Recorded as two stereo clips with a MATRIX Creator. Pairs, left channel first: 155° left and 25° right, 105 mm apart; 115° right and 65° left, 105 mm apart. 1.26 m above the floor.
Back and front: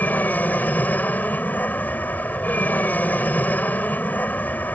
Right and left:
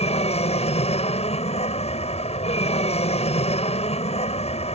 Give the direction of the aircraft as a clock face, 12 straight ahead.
4 o'clock.